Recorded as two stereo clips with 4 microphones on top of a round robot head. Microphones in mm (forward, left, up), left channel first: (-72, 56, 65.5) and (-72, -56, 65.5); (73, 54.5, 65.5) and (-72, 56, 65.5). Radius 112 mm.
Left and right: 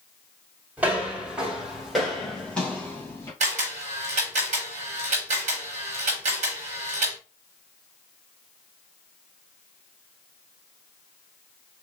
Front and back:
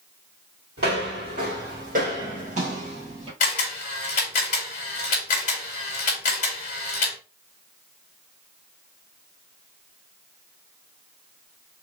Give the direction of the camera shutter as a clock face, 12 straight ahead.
2 o'clock.